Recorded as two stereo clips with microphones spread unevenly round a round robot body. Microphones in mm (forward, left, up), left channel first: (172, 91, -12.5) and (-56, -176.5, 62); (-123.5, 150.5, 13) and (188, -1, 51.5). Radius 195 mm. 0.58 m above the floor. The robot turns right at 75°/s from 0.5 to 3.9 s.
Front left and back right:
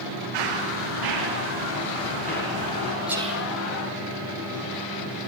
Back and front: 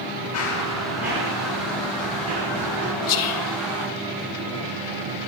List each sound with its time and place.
0.3 s running footsteps: 150° right, 7.5 m; by 2.9 s 30° left, 9 m
3.1 s whispering: 135° left, 2.5 m; by 3.5 s 170° left, 2.5 m